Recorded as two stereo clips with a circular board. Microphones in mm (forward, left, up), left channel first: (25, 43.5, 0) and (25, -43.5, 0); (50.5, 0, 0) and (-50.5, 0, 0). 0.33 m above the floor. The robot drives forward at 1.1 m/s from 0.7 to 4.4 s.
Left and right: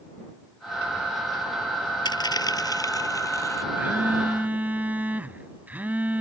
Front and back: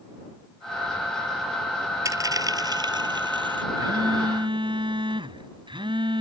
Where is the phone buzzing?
150° right; by 6.2 s 160° right.